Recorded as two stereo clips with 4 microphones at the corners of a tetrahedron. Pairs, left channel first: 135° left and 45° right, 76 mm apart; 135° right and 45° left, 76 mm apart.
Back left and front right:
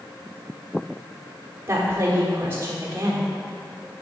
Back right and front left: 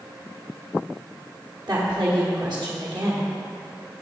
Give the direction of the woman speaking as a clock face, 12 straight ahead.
11 o'clock.